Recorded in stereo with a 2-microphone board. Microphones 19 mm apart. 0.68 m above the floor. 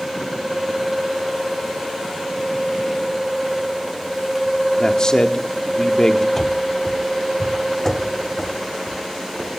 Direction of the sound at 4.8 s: 35° left (ahead or behind).